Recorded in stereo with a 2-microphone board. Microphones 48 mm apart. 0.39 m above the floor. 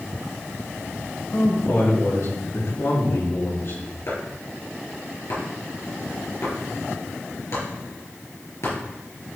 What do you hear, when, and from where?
1.3 s a man speaking: 75° left (ahead or behind), 4.5 m; by 3.8 s 65° left (ahead or behind), 5 m
4.1 s chopping: 65° left (ahead or behind), 4.5 m